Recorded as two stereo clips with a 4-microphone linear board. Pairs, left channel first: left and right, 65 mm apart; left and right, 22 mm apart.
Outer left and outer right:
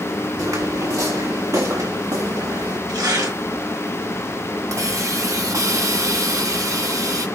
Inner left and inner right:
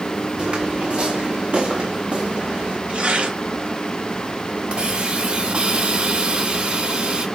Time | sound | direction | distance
0.4 | footsteps | 55° right (ahead or behind) | 3.5 m
2.9 | tearing paper | 80° right | 2.5 m
4.7 | a hiss | 55° right (ahead or behind) | 1.3 m